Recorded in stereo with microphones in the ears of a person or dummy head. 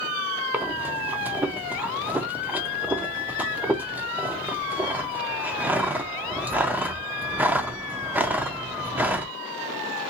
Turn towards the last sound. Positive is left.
turn(degrees=-10)  # may be behind; listen again after turning